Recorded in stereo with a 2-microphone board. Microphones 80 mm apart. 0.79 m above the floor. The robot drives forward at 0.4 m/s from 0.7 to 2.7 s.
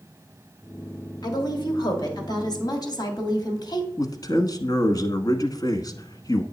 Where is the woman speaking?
60° left (ahead or behind), 2.0 m.